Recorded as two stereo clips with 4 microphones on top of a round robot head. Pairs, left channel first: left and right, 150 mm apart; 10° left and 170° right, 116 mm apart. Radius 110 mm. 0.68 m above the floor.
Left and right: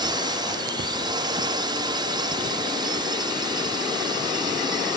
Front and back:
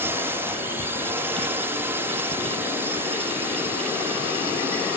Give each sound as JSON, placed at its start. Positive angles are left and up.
{"t": 0.0, "sound": "a drone", "azimuth_deg": -120}